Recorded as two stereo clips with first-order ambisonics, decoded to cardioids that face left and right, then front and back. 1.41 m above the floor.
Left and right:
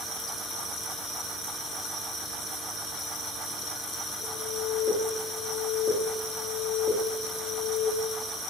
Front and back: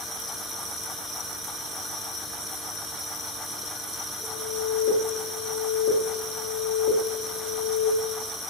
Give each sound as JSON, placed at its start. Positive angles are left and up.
{"t": 4.2, "sound": "an alarm", "azimuth_deg": -70, "distance_m": 1.4}